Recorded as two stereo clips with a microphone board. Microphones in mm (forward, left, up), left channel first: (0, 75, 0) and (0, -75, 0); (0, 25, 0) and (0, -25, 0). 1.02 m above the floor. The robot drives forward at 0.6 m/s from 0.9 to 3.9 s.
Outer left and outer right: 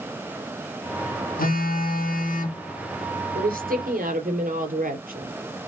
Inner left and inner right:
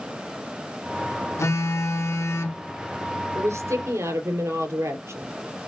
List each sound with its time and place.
1.4 s a phone buzzing: 70° left (ahead or behind), 1.6 m; by 2.6 s 60° left (ahead or behind), 1.8 m
3.4 s a woman speaking: 75° right (ahead or behind), 3 m; by 5.3 s 70° right (ahead or behind), 3.5 m